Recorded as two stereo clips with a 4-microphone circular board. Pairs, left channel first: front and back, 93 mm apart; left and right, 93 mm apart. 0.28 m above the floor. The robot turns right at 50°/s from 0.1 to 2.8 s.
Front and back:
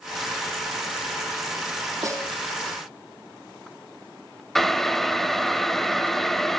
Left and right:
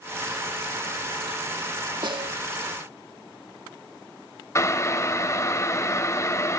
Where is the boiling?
85° left, 1.4 m.